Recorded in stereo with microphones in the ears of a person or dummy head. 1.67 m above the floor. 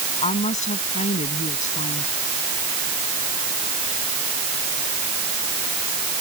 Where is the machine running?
I don't hear a machine running.